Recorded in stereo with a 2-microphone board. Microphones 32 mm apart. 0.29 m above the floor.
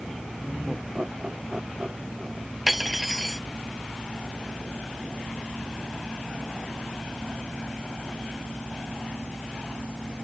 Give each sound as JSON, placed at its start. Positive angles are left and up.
{"t": 0.4, "sound": "laughter", "side_deg": -35}
{"t": 2.7, "sound": "cutlery clinking", "side_deg": -5}